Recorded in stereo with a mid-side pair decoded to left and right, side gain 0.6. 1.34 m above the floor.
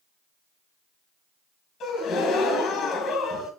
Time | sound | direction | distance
1.8 | a gasp | 55° left | 1.7 m